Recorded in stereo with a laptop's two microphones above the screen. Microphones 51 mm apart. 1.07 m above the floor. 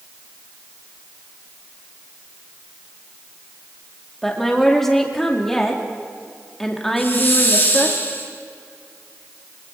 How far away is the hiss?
About 4 m.